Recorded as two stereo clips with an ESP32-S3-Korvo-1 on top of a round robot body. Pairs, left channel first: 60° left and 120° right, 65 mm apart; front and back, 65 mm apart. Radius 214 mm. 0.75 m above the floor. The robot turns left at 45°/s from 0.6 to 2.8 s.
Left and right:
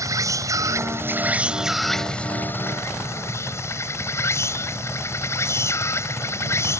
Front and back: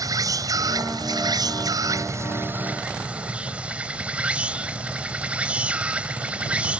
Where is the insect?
155° right; by 6.8 s 110° left.